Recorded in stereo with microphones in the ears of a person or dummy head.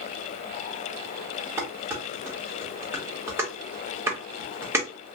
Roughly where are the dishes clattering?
Centre.